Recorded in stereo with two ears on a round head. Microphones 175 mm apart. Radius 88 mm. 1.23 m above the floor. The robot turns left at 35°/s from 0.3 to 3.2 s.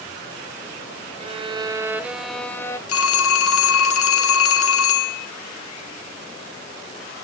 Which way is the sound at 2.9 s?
85° left.